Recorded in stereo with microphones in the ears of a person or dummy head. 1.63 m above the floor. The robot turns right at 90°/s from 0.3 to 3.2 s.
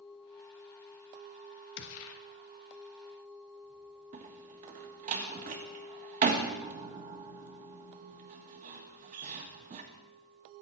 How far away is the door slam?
About 1.4 m.